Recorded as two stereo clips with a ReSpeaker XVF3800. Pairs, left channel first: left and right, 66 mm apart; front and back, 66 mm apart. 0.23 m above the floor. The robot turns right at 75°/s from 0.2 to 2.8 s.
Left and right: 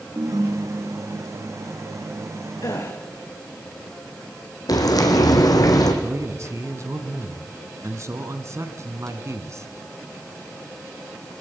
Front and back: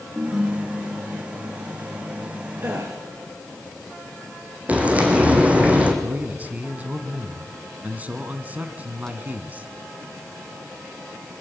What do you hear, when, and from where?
0.1 s a ringtone: 115° right, 2.0 m; by 1.4 s 20° right, 2.0 m
2.6 s a gasp: 125° left, 5 m; by 3.0 s 135° left, 5 m
4.7 s frying: 110° left, 3 m
6.0 s a man speaking: 120° right, 2 m